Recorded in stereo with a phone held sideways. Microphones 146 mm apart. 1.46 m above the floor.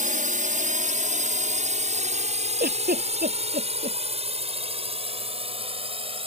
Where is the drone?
65° right (ahead or behind); by 6.3 s 40° right (ahead or behind).